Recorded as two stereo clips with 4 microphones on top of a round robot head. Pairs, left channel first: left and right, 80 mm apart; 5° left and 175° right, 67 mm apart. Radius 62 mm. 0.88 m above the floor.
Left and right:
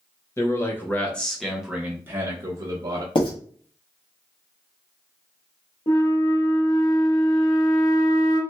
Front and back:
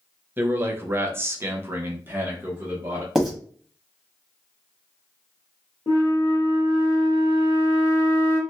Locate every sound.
0.4 s a man speaking: 135° left, 1.1 m; by 3.0 s 105° right, 1.1 m
3.1 s writing: 100° left, 1.4 m
5.9 s a flute: 55° left, 1.1 m